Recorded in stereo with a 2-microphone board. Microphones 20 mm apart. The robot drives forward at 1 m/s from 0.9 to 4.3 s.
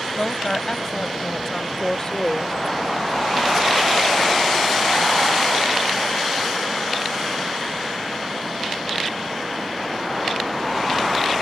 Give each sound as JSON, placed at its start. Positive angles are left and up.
{"t": 0.2, "sound": "a woman speaking", "side_deg": 20}